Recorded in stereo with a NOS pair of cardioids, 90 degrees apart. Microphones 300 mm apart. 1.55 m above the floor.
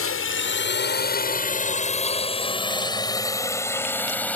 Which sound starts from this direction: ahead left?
A drone, at 0.0 s.